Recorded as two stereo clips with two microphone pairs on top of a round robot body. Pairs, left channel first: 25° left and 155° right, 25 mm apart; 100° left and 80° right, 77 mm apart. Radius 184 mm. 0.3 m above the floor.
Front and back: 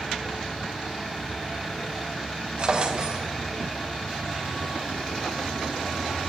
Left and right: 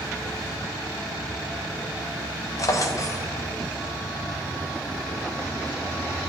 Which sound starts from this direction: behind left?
A drawer, at 2.6 s.